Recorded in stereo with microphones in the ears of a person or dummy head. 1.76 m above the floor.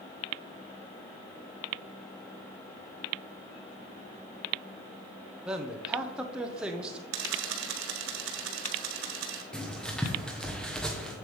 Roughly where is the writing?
Centre.